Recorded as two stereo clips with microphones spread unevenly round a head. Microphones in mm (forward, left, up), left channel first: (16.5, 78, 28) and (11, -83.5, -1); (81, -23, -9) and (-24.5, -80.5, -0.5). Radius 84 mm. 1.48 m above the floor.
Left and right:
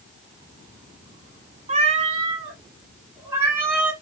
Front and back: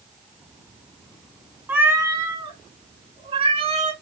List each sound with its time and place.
1.7 s a cat meowing: 100° right, 1.4 m; by 3.9 s straight behind, 2.5 m